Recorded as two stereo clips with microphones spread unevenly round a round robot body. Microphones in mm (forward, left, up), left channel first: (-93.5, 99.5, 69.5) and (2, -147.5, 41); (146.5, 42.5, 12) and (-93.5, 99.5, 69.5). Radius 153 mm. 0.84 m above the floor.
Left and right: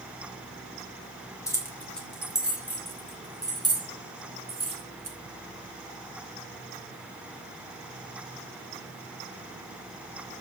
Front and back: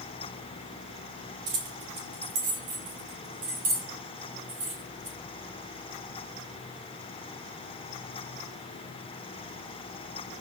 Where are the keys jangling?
170° right, 4 m; by 5.2 s 135° right, 7 m.